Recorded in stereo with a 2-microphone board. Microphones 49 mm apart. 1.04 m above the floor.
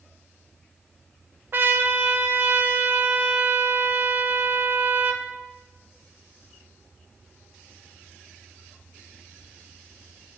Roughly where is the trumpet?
Right.